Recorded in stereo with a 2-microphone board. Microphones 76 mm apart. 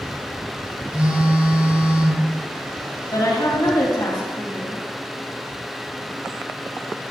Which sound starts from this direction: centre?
A phone buzzing, at 0.9 s.